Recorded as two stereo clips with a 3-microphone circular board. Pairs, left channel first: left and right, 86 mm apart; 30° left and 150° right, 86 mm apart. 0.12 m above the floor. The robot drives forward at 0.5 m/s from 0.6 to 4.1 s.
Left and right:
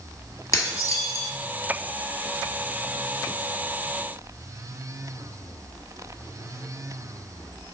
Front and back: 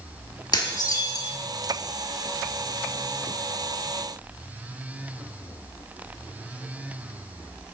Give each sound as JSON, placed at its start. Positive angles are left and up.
{"t": 0.5, "sound": "dishes clattering", "azimuth_deg": 45, "distance_m": 1.3}